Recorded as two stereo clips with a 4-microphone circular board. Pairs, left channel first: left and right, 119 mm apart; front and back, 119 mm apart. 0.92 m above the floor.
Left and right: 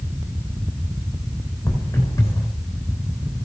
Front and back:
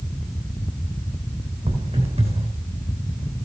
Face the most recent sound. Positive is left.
turn(degrees=155)